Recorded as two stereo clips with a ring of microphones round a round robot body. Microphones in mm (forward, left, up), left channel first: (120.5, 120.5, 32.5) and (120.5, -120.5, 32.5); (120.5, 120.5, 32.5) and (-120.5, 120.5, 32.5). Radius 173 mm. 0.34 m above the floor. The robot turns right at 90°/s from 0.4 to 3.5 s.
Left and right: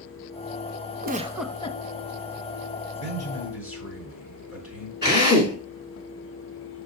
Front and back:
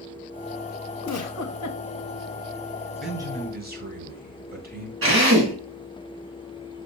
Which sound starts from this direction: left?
A man speaking, at 3.0 s.